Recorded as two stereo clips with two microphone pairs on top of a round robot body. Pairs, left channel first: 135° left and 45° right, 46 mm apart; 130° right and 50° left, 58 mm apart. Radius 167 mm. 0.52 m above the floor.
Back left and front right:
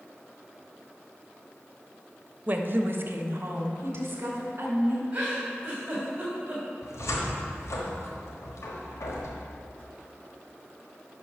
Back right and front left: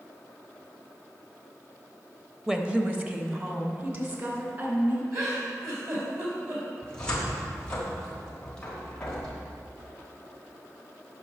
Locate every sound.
2.5 s a woman speaking: 30° right, 1.0 m; by 5.0 s straight ahead, 3.5 m
5.1 s a giggle: 20° left, 3.5 m
6.8 s a cupboard door: 150° left, 1.2 m